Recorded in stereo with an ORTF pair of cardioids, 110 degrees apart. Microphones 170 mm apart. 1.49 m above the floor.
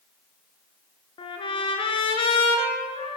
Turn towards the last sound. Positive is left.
turn(degrees=30)